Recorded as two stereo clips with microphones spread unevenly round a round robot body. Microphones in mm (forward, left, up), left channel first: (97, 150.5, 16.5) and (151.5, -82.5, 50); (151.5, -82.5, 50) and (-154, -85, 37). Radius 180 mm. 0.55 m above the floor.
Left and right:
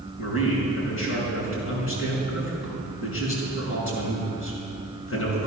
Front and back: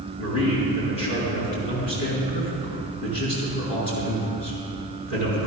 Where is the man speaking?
75° left, 5 m.